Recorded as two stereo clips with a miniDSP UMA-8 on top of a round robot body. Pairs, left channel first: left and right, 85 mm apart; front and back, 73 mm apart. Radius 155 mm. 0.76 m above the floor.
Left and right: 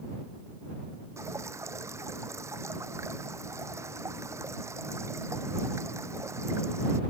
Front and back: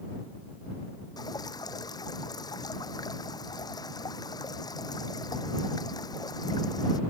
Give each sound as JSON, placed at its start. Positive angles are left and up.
{"t": 1.2, "sound": "dripping", "azimuth_deg": -30}